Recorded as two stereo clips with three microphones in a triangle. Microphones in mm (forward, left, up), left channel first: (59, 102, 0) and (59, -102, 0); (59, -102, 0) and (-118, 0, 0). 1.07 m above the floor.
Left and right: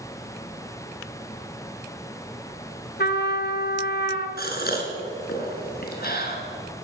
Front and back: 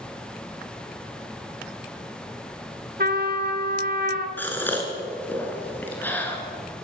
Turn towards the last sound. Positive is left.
turn(degrees=50)